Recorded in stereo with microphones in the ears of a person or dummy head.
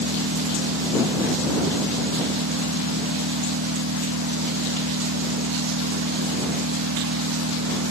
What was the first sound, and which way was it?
An engine running, 80° right.